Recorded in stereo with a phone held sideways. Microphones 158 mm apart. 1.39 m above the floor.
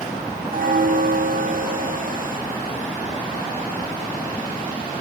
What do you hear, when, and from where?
0.5 s a bell: 65° right (ahead or behind), 1.2 m